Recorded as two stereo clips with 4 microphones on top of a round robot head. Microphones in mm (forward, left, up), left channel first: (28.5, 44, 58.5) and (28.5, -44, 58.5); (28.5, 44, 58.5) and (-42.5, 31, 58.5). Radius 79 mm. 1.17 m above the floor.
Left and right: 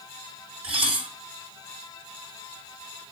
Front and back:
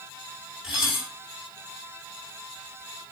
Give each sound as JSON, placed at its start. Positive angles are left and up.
{"t": 0.6, "sound": "dishes clattering", "azimuth_deg": -85, "distance_m": 4.0}